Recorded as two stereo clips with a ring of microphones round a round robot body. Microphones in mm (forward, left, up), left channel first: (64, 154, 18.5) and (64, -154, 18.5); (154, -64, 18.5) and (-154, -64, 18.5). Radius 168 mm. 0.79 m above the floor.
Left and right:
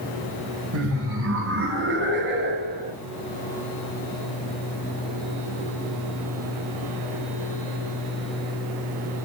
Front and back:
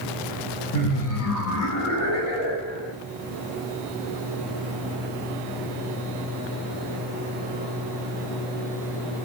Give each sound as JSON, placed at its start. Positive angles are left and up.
{"t": 0.7, "sound": "laughter", "azimuth_deg": -45, "distance_m": 4.5}